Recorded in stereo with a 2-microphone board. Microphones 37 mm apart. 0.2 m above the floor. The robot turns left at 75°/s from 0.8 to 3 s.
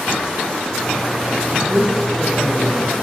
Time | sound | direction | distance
1.5 | a man speaking | 130° right | 5 m